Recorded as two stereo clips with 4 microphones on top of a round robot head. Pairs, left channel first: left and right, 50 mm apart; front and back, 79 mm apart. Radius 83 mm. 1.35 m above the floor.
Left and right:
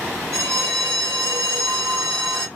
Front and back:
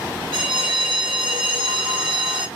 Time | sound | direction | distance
0.3 | a bell | 150° right | 0.8 m